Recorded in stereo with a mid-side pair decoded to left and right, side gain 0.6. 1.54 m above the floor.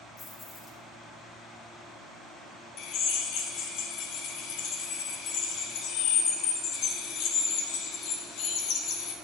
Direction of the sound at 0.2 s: 30° left.